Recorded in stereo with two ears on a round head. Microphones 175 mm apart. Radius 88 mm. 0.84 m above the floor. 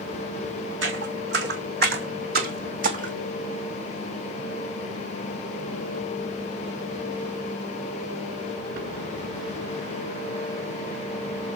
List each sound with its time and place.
0.8 s footsteps: 65° right (ahead or behind), 3 m; by 3.1 s 40° right (ahead or behind), 2.5 m